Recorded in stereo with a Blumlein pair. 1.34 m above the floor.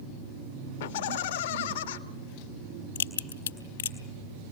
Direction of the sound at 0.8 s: 55° left.